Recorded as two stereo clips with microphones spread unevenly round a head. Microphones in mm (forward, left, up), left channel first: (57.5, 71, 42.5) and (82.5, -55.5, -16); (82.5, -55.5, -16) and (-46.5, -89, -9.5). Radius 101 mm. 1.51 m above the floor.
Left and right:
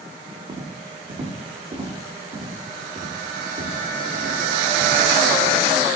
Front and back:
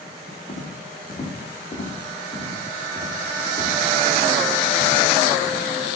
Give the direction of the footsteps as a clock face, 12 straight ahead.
1 o'clock.